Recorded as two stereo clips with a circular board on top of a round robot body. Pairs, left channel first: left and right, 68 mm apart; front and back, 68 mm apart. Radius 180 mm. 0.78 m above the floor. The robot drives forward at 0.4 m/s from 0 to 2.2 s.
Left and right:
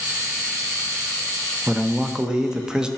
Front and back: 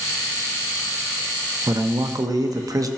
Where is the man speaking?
160° right, 0.7 m; by 2.9 s 165° right, 0.8 m.